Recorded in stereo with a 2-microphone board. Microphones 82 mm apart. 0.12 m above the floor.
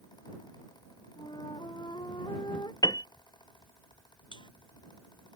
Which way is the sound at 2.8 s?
55° left (ahead or behind).